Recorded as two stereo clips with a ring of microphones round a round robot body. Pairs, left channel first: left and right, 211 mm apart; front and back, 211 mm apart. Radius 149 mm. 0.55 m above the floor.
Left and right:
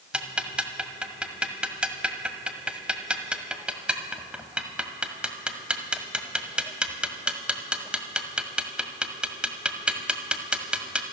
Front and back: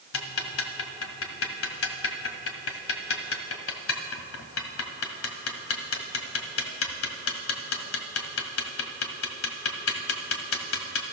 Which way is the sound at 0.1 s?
5° right.